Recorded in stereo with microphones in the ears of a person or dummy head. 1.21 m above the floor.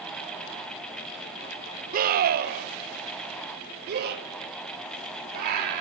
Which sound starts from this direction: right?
A scream, at 1.9 s.